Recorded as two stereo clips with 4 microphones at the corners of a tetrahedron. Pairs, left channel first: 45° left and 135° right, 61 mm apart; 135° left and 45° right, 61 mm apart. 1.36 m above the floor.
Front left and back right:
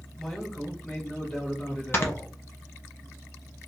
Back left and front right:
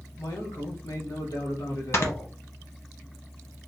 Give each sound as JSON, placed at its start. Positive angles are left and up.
{"t": 0.2, "sound": "a man speaking", "azimuth_deg": 130, "distance_m": 1.7}
{"t": 1.9, "sound": "snoring", "azimuth_deg": 95, "distance_m": 1.0}